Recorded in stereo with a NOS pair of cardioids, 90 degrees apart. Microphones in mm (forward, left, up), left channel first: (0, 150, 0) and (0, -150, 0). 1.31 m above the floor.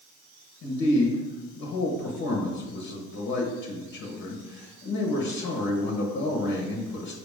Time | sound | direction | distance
0.6 | a man speaking | 70° left | 1.3 m